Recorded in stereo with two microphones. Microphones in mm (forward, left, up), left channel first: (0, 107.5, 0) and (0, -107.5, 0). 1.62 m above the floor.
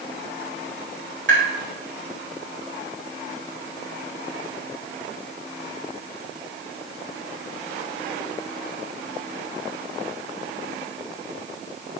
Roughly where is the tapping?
Right.